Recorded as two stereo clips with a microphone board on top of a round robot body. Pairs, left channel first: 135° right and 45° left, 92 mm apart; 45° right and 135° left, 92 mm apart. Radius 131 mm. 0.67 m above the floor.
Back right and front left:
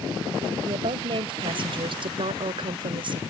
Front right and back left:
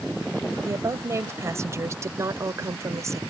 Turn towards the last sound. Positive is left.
turn(degrees=75)